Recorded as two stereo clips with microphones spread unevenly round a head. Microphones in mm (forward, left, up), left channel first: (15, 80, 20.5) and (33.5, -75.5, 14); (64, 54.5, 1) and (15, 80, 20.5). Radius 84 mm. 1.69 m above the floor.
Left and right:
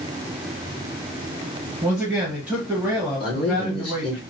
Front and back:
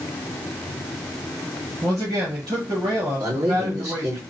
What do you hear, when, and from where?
1.8 s a man speaking: 165° right, 1.3 m
3.2 s a man speaking: 160° left, 1.9 m